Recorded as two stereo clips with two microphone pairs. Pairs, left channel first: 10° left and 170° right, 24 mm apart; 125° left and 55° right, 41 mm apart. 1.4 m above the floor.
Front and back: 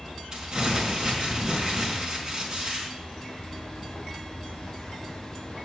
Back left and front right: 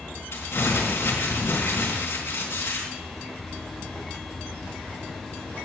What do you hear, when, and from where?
0.3 s crumpling: 140° left, 4 m